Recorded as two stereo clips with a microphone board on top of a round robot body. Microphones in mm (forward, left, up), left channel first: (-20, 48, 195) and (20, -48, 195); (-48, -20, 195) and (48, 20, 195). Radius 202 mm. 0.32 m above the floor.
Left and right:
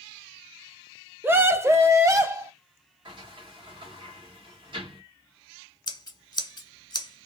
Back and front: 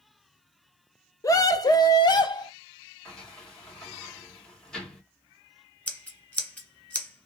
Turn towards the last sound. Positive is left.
turn(degrees=135)